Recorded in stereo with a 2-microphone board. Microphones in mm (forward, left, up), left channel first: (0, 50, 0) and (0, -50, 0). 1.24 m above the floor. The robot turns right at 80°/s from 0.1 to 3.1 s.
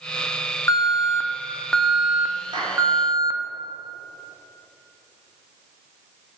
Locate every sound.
0.7 s an alarm: 85° left, 0.9 m; by 3.4 s 80° right, 0.9 m
2.5 s a clap: 50° right (ahead or behind), 3 m; by 2.8 s 30° right (ahead or behind), 3 m